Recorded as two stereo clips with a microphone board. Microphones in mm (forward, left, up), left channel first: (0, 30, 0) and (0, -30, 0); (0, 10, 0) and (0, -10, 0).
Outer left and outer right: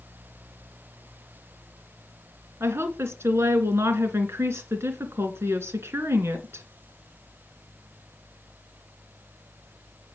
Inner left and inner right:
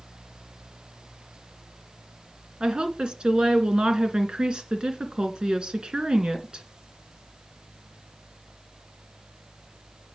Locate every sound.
2.6 s a woman speaking: 50° right (ahead or behind), 2 m